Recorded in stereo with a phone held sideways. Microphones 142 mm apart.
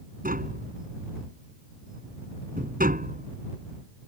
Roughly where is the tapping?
Right.